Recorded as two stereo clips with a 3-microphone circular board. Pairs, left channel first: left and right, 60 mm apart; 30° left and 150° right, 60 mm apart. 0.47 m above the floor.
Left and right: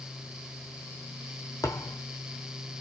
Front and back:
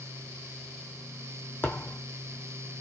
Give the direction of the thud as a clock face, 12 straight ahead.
9 o'clock.